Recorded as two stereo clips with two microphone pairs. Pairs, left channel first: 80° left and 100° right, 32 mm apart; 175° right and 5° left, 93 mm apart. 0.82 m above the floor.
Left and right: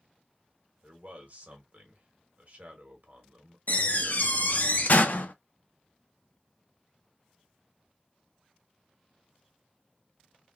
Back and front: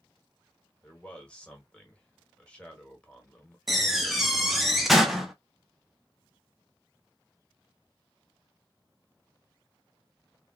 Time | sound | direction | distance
0.8 | a man speaking | 105° right | 1.2 m
3.7 | a door slam | 90° left | 0.6 m